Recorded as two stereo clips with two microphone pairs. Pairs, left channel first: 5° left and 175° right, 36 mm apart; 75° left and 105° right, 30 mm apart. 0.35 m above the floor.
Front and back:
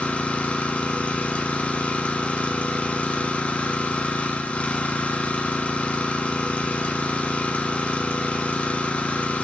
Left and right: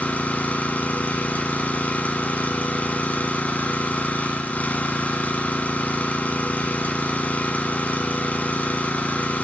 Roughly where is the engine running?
Ahead left.